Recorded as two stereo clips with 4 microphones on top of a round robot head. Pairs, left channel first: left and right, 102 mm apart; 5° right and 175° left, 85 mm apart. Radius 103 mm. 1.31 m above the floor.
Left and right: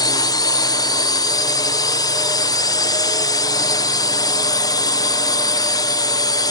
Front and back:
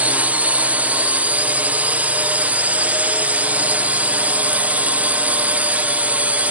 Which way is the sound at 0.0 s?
110° left.